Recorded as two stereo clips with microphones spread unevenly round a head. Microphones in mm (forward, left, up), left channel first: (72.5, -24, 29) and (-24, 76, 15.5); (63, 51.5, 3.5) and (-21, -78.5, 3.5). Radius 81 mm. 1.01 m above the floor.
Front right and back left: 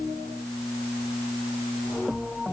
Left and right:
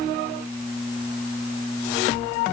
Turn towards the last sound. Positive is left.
No sound to turn to.